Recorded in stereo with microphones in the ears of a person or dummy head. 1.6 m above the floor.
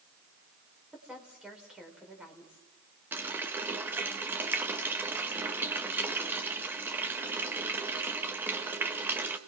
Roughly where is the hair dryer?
I don't hear a hair dryer.